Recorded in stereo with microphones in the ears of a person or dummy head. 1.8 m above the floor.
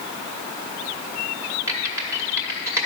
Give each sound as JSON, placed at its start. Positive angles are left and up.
{"t": 1.7, "sound": "typing on a keyboard", "side_deg": -15, "distance_m": 1.1}